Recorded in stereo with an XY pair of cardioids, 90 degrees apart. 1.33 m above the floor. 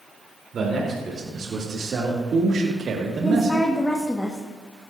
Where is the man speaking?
55° right, 3.5 m; by 3.7 s 75° right, 1.4 m.